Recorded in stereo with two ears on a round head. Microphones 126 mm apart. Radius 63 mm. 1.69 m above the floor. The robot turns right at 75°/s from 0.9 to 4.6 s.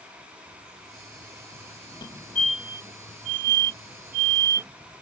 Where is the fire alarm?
35° left (ahead or behind); by 4.7 s 25° right (ahead or behind).